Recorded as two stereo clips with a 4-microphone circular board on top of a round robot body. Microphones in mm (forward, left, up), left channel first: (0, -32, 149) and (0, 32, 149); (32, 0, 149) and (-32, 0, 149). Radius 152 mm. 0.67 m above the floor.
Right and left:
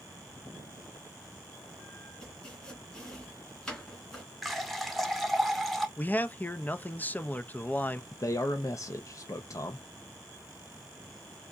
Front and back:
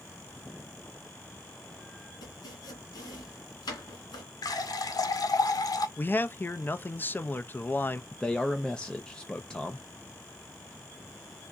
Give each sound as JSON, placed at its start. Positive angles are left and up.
{"t": 2.2, "sound": "chopping", "azimuth_deg": -15, "distance_m": 2.0}
{"t": 4.4, "sound": "a running tap", "azimuth_deg": 0, "distance_m": 0.9}
{"t": 6.0, "sound": "a man speaking", "azimuth_deg": -40, "distance_m": 0.6}
{"t": 8.1, "sound": "a man speaking", "azimuth_deg": -75, "distance_m": 0.7}